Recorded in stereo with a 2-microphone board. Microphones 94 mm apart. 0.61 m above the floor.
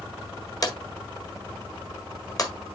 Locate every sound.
0.6 s a drawer: 40° left (ahead or behind), 1.8 m